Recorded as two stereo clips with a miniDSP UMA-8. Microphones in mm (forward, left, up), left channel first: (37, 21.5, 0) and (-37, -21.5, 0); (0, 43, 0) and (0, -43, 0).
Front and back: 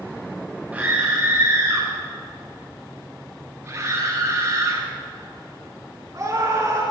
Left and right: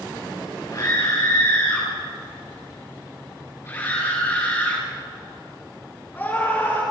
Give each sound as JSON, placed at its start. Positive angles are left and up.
{"t": 0.7, "sound": "a scream", "azimuth_deg": 140, "distance_m": 6.0}